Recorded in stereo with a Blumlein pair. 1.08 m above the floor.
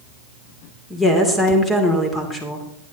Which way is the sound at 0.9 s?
15° left.